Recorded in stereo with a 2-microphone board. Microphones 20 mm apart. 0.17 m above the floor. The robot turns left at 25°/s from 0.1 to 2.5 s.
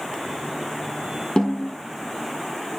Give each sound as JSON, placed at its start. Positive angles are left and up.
{"t": 1.4, "sound": "a snare drum", "side_deg": 40, "distance_m": 2.5}